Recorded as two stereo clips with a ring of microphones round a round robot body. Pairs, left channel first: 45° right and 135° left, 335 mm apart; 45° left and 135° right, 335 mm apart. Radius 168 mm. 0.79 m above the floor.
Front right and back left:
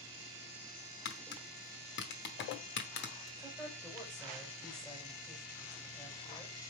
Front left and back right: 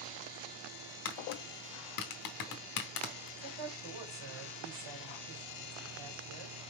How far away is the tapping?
About 0.8 m.